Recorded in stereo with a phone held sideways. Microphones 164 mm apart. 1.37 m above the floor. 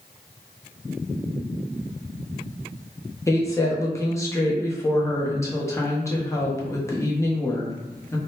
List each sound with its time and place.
3.3 s a woman speaking: 20° left (ahead or behind), 0.7 m